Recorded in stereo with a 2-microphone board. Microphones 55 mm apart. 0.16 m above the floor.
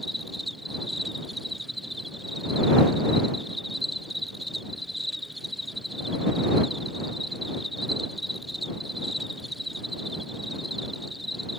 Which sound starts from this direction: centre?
An insect, at 0.0 s.